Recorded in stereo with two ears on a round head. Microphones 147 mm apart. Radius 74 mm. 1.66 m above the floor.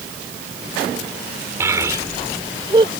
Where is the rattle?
No rattle in this recording.